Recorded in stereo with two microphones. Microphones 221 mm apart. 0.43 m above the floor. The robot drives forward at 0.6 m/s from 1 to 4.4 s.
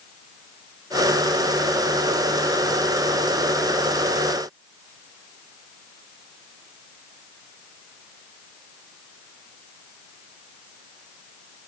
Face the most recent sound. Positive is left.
No sound to turn to.